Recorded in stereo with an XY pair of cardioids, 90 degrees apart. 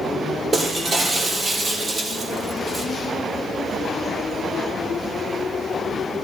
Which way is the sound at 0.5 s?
35° right.